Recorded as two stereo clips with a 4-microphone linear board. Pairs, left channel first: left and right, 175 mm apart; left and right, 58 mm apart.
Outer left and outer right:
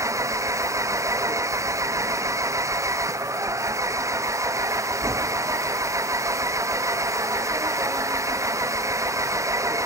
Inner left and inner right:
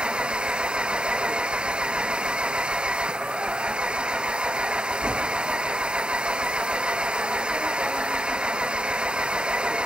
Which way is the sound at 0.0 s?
15° right (ahead or behind).